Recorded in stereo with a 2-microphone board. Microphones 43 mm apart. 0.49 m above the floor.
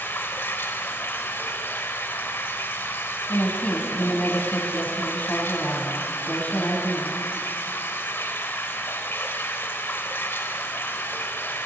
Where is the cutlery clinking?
No cutlery clinking in this recording.